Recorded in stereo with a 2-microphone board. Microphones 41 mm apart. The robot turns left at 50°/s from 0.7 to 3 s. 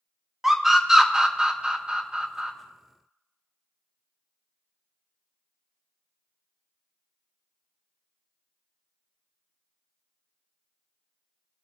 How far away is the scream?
About 0.6 m.